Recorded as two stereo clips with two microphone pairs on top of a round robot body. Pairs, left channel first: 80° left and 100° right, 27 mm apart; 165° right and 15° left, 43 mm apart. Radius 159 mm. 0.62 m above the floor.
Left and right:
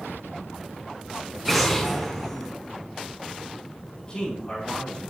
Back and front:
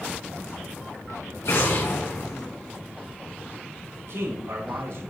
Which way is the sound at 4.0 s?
10° left.